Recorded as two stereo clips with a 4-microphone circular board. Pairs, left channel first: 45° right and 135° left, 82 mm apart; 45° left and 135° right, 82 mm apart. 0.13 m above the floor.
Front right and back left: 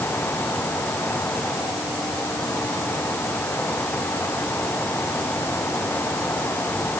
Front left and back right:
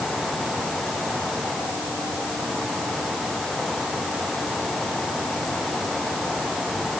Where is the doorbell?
I don't hear a doorbell.